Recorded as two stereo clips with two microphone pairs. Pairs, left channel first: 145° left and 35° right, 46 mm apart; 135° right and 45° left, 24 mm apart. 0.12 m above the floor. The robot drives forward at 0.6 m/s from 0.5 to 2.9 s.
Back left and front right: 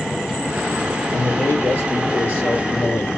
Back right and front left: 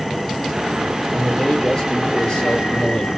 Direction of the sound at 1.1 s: 175° left.